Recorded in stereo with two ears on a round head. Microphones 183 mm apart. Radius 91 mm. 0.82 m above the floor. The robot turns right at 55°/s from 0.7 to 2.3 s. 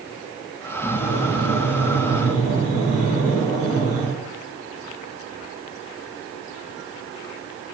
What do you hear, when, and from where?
0.8 s breathing: 140° left, 1.8 m; by 4.1 s 140° right, 1.8 m